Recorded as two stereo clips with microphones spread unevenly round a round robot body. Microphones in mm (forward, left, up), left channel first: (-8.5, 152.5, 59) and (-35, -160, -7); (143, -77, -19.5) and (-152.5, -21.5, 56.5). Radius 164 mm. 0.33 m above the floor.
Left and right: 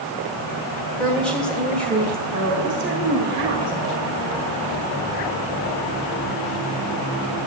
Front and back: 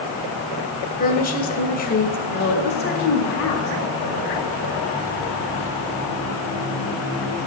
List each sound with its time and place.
1.0 s a woman speaking: 15° right, 1.8 m
2.3 s a woman speaking: 55° right, 3 m